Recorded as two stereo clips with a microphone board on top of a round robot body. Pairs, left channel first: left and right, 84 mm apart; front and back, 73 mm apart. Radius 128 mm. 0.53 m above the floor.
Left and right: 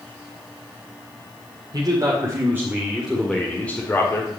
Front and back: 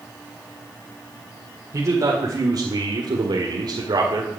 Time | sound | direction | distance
1.7 | a man speaking | 135° right | 3 m